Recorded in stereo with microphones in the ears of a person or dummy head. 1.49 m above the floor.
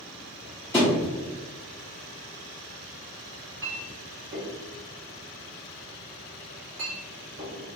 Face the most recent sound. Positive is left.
turn(degrees=-70)  # may be behind; listen again after turning